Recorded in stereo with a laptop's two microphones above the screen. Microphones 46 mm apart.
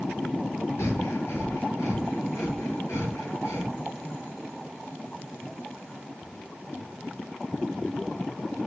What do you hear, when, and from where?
0.8 s breathing: 85° left, 6.5 m